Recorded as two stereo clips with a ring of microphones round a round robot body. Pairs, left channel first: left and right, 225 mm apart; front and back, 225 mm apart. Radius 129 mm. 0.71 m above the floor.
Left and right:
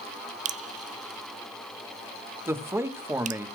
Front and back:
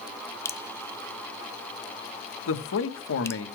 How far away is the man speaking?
About 1.6 m.